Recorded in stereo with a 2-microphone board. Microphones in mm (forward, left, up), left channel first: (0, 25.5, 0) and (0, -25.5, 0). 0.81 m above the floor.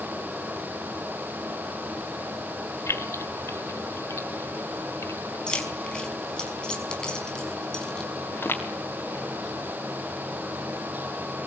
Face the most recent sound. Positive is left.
turn(degrees=40)  # may be behind; listen again after turning